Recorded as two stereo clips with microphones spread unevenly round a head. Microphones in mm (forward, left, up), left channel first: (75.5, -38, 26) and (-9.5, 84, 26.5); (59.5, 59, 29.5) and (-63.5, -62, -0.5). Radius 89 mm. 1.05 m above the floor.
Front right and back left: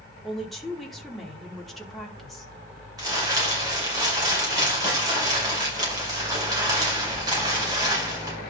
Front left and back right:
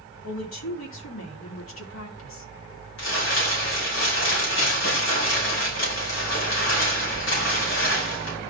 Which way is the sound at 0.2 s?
35° left.